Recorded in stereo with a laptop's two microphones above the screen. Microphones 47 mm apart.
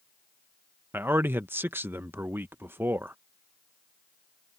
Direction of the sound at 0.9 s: 50° right (ahead or behind).